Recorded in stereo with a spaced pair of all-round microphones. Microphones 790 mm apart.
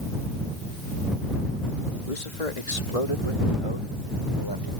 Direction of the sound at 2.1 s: 70° left (ahead or behind).